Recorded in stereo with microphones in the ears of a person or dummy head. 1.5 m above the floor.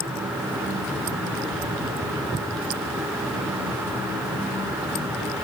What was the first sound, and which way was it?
Only background noise.